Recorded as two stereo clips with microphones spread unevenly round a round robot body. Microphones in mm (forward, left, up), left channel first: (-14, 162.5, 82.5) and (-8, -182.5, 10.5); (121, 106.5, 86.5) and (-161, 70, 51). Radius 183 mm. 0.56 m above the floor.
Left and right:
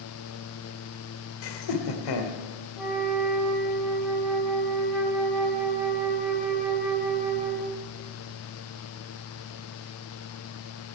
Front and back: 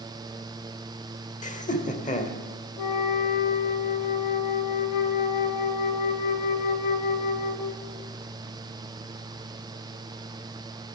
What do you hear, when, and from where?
1.4 s laughter: 75° left, 2 m
2.8 s a flute: straight ahead, 1.7 m